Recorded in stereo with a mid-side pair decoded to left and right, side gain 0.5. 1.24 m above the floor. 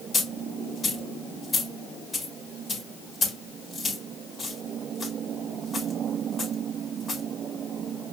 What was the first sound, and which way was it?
A dropped coin, 35° left.